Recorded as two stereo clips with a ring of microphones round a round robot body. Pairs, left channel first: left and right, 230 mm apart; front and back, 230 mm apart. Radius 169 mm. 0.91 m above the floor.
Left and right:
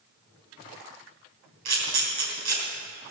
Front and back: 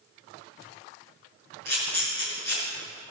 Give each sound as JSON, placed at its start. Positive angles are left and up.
{"t": 1.6, "sound": "a camera shutter", "azimuth_deg": -115, "distance_m": 3.0}